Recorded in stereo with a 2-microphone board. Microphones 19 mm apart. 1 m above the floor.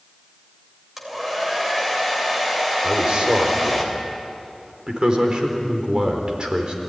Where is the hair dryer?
15° right (ahead or behind), 3.5 m.